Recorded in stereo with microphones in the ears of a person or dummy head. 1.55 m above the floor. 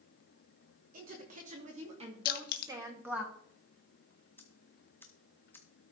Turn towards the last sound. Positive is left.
turn(degrees=15)  # may be behind; listen again after turning